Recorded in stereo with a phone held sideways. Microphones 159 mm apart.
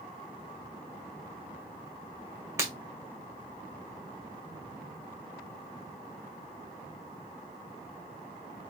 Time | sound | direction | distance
2.6 | breaking glass | 15° right (ahead or behind) | 1.8 m